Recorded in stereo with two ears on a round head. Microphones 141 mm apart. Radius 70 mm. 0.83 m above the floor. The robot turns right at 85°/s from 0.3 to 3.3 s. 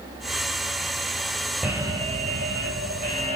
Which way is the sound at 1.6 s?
175° right.